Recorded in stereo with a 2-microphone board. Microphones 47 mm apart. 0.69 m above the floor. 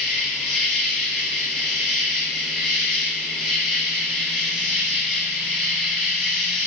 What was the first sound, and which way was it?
An insect, 5° right (ahead or behind).